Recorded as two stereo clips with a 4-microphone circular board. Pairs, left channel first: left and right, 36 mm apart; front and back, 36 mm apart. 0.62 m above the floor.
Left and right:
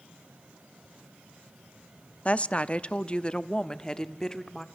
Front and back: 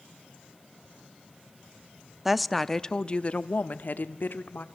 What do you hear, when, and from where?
2.2 s a woman speaking: 105° left, 0.8 m; by 4.6 s 15° left, 1.5 m